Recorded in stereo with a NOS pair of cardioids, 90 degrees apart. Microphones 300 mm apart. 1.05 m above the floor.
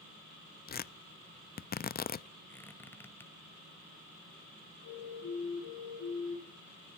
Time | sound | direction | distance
0.7 | tearing paper | 30° left | 0.7 m
2.5 | a squeak | 5° left | 2 m
4.8 | a siren | 65° left | 6.5 m